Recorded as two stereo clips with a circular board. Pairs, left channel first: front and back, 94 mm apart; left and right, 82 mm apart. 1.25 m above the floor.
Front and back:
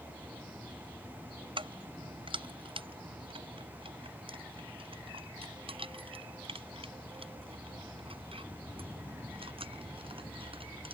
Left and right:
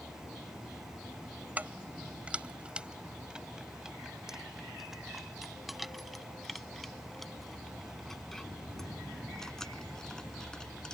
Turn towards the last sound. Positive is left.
turn(degrees=170)